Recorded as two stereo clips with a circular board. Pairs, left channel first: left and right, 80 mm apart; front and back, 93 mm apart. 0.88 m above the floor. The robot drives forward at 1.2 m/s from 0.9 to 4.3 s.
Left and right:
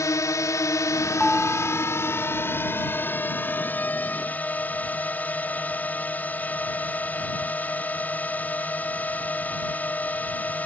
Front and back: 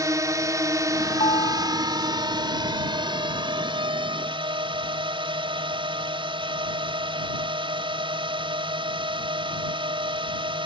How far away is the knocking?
No knocking in this recording.